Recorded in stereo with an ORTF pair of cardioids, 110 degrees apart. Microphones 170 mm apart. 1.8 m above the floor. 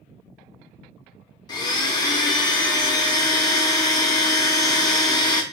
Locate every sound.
1.5 s a blender: 25° left, 0.6 m